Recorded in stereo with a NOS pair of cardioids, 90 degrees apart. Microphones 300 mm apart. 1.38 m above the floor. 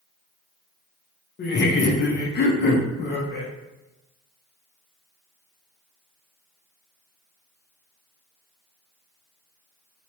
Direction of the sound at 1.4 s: 35° left.